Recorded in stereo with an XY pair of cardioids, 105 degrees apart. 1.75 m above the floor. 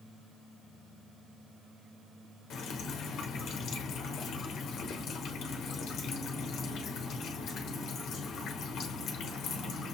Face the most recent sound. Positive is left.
turn(degrees=70)